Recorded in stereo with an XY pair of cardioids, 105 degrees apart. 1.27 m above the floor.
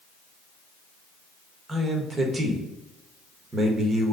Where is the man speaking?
30° right, 1.3 m.